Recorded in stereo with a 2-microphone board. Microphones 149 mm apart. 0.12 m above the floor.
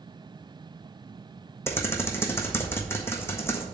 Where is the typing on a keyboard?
15° left (ahead or behind), 1.2 m.